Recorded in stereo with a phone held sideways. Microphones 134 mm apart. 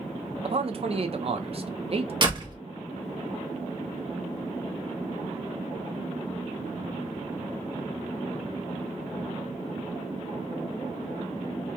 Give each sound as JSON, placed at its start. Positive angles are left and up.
{"t": 0.4, "sound": "a man speaking", "side_deg": -45, "distance_m": 0.5}
{"t": 2.2, "sound": "a door slam", "side_deg": -35, "distance_m": 0.8}